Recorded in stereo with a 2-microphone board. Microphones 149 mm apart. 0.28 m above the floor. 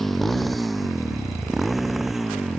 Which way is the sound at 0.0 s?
Centre (ahead or behind).